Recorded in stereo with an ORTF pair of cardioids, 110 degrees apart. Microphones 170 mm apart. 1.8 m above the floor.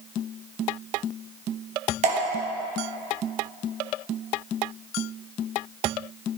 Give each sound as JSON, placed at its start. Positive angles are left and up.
{"t": 2.0, "sound": "dripping", "azimuth_deg": -45, "distance_m": 1.5}